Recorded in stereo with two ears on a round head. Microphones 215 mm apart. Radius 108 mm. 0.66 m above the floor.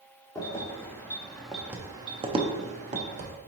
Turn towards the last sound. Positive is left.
turn(degrees=-30)  # may be behind; listen again after turning